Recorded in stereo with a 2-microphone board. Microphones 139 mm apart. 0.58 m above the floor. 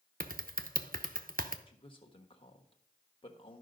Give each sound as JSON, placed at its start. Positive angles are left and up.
{"t": 0.2, "sound": "typing on a keyboard", "side_deg": -70, "distance_m": 0.7}
{"t": 1.7, "sound": "a man speaking", "side_deg": 35, "distance_m": 1.3}